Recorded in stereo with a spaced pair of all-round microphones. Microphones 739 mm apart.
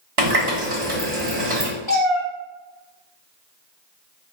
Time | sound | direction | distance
0.2 | a running tap | 45° right (ahead or behind) | 1.1 m
1.9 | a cat meowing | 35° left (ahead or behind) | 1.3 m